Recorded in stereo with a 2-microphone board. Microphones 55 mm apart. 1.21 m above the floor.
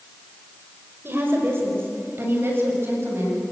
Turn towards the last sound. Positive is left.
turn(degrees=-45)  # may be behind; listen again after turning